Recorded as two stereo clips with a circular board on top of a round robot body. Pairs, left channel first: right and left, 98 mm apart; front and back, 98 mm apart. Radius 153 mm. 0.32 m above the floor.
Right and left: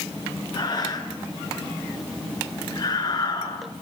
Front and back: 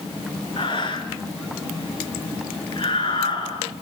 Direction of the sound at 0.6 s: 40° right.